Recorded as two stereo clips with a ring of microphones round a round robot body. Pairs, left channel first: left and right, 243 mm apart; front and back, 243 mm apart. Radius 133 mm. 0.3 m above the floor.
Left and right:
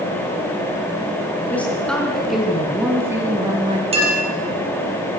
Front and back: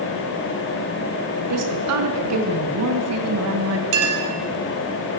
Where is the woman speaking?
175° left, 5 m; by 3.8 s 160° right, 3 m.